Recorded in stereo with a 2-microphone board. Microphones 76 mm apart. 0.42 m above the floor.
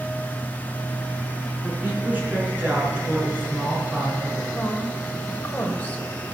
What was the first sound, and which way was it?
A woman speaking, 20° right (ahead or behind).